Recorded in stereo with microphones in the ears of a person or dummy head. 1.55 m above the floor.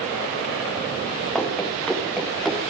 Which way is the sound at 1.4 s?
Centre (ahead or behind).